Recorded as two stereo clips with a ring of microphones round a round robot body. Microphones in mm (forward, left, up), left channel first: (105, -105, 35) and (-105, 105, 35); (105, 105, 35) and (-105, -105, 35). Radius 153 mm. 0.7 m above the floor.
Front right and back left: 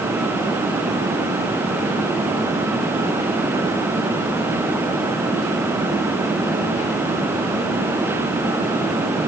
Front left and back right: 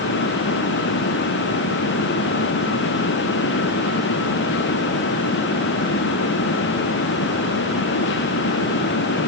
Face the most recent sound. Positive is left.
No sound to turn to.